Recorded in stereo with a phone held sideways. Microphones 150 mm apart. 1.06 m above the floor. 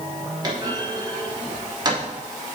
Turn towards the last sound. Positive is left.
turn(degrees=-30)  # may be behind; listen again after turning